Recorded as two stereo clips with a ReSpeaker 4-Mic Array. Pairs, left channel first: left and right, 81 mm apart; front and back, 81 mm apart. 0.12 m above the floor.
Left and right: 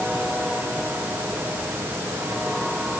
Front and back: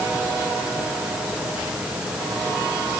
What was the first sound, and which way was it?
Only background noise.